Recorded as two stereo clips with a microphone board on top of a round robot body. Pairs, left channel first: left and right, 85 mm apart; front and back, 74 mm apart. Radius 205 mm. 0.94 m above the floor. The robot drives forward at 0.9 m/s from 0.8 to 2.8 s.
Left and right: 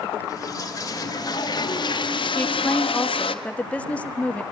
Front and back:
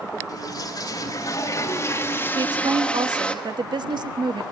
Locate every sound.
0.3 s a toilet flushing: 35° left, 3 m; by 3.4 s 75° left, 1.7 m
2.4 s a woman speaking: 160° left, 1.5 m; by 4.4 s 165° left, 1.9 m